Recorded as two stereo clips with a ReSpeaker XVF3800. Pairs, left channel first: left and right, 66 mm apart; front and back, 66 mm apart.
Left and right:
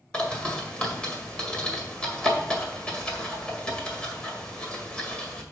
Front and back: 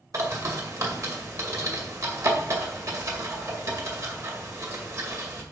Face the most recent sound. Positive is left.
turn(degrees=160)